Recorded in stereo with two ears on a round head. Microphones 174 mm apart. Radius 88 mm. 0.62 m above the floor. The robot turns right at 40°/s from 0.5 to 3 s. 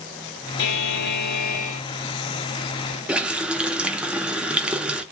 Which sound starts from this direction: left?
A buzzer, at 0.6 s.